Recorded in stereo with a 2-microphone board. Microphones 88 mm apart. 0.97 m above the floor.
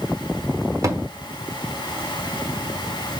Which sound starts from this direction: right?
A thud, at 0.8 s.